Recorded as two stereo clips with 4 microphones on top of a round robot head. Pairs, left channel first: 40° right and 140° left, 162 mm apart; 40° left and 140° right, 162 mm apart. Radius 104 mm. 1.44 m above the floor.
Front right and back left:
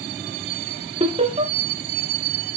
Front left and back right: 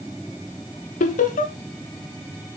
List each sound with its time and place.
1.0 s laughter: 85° left, 1.1 m